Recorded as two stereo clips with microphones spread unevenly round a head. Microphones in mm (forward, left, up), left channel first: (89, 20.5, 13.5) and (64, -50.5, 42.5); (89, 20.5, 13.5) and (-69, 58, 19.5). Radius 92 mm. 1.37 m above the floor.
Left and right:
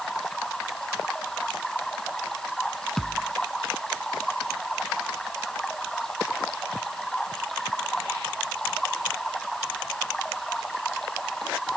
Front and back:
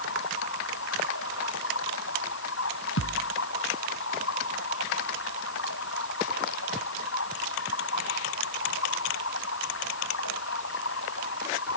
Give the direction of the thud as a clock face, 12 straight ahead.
12 o'clock.